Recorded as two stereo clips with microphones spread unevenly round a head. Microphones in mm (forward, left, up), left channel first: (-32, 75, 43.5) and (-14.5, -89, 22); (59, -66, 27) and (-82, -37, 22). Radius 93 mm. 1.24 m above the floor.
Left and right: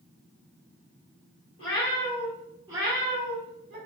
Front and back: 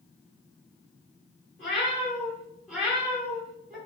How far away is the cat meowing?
About 1.1 m.